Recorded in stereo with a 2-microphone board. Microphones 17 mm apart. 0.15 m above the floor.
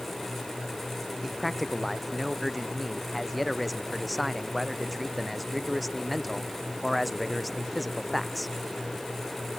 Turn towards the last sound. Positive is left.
turn(degrees=5)  # may be behind; listen again after turning